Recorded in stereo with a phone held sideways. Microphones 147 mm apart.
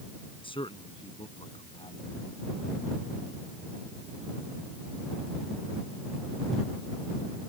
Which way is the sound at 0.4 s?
35° left (ahead or behind).